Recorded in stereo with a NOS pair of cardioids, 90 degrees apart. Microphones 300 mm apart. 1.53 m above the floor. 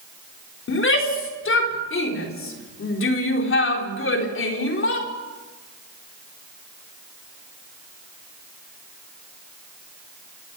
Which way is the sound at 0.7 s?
45° left.